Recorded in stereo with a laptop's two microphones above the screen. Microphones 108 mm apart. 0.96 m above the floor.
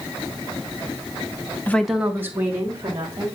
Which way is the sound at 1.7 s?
20° left (ahead or behind).